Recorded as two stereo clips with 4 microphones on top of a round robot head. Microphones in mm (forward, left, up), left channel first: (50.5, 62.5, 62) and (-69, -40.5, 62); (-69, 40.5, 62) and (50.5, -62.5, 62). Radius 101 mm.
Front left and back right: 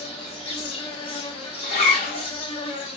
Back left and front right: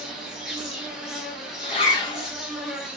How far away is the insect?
About 0.8 m.